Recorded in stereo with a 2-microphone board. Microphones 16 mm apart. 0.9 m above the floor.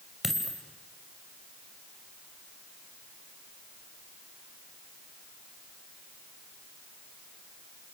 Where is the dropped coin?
20° right (ahead or behind), 2.5 m.